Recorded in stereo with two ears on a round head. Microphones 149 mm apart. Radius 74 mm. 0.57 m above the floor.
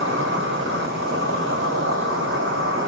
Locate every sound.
0.0 s an insect: 80° right, 1.4 m